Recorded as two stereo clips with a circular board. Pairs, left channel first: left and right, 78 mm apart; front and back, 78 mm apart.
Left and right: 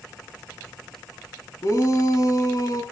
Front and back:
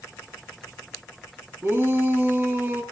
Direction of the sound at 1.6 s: 115° left.